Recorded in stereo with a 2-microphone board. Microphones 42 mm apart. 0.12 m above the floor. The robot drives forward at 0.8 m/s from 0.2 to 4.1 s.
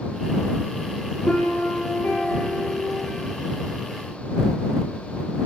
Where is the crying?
I don't hear crying.